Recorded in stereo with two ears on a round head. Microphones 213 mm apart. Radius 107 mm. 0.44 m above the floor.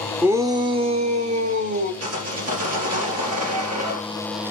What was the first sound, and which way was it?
A shout, 10° right (ahead or behind).